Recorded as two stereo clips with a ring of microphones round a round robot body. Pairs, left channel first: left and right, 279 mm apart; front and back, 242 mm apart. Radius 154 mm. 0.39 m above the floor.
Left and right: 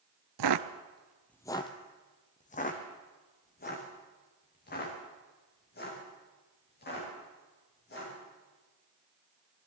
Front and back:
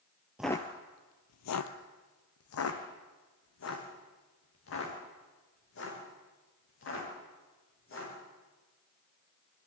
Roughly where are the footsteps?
Right.